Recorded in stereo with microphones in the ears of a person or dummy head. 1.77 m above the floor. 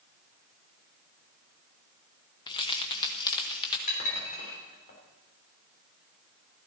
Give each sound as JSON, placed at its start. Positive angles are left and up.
{"t": 2.5, "sound": "keys jangling", "side_deg": 25, "distance_m": 1.0}
{"t": 3.9, "sound": "dishes clattering", "side_deg": 40, "distance_m": 3.5}